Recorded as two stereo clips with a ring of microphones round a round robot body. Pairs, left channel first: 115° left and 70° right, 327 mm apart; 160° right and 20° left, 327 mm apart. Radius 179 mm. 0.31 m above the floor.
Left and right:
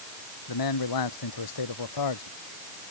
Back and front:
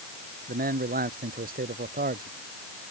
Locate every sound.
0.5 s a man speaking: 90° left